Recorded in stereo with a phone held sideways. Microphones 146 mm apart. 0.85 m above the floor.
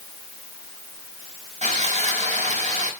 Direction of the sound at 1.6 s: 50° right (ahead or behind).